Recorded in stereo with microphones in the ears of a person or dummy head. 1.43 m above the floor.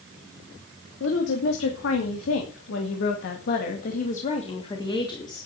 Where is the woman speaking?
75° left (ahead or behind), 3 m; by 5.5 s 20° left (ahead or behind), 3 m.